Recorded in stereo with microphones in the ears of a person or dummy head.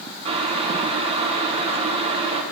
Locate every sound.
0.2 s boiling: 30° right (ahead or behind), 0.7 m